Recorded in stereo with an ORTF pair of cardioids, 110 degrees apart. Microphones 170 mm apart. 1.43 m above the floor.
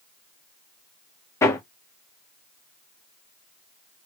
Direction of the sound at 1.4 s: 15° left.